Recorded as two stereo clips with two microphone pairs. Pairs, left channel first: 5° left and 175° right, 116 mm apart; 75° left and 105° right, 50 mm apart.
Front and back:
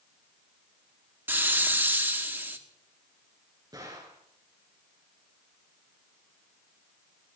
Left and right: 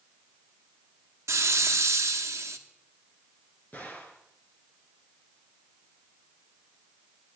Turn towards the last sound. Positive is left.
turn(degrees=130)